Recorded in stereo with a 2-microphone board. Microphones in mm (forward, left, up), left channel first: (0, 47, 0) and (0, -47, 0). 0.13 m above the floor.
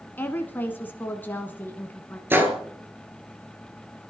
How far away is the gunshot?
About 2.0 m.